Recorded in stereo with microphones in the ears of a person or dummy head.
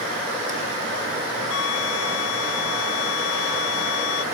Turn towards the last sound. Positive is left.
turn(degrees=85)